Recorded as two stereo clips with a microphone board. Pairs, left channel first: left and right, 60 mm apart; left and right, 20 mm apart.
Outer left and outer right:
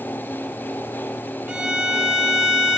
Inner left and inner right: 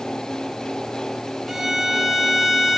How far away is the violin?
About 0.5 m.